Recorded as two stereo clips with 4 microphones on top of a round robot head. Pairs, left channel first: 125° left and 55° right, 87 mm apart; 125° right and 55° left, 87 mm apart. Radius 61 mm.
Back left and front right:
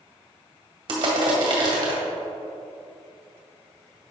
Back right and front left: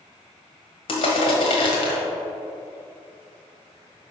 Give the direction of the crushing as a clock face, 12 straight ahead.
3 o'clock.